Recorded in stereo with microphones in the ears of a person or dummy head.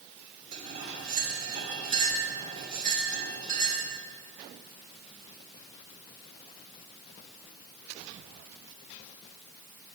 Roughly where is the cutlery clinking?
Right.